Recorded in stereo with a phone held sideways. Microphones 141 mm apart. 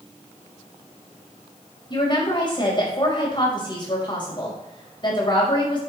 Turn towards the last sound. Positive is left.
turn(degrees=35)  # may be behind; listen again after turning